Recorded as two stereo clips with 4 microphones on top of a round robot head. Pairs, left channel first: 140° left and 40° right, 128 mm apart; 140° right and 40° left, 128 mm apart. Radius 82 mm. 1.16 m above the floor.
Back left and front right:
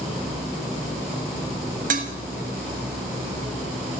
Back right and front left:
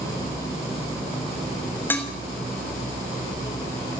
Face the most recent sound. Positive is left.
turn(degrees=-65)